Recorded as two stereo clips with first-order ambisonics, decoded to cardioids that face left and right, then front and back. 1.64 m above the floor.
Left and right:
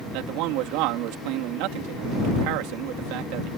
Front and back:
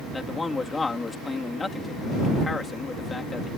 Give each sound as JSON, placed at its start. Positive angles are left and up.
{"t": 0.1, "sound": "a man speaking", "azimuth_deg": -75}